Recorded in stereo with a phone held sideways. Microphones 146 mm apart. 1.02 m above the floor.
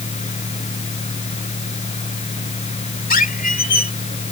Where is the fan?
50° left (ahead or behind).